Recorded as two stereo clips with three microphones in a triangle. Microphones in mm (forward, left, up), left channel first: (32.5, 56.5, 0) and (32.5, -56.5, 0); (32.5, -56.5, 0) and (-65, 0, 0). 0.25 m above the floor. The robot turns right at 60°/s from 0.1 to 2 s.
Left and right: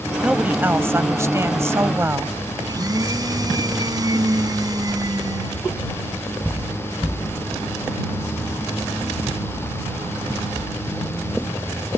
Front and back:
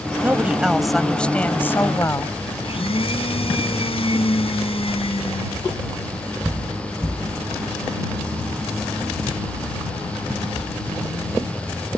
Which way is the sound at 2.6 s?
40° right.